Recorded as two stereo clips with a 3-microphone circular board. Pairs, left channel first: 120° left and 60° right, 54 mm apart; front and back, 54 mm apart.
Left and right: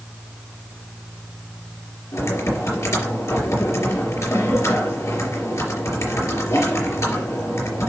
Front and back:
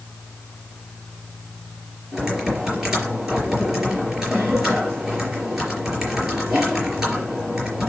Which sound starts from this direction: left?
Typing on a keyboard, at 2.1 s.